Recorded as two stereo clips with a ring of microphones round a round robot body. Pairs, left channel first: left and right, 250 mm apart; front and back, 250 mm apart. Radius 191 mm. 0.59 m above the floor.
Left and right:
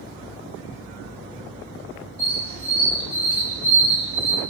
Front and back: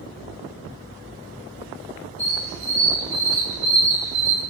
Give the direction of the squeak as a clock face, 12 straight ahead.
4 o'clock.